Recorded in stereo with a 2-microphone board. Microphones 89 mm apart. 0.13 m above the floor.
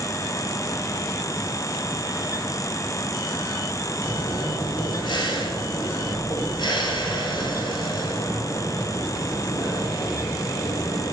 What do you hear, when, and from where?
4.0 s breathing: 55° left (ahead or behind), 3 m